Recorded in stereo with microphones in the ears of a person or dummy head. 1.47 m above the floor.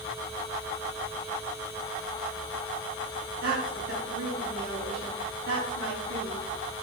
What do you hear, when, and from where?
3.4 s a woman speaking: 75° right (ahead or behind), 5.5 m